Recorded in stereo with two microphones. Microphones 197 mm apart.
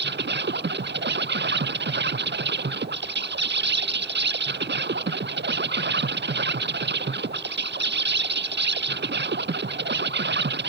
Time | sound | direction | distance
0.0 | an insect | 70° right (ahead or behind) | ?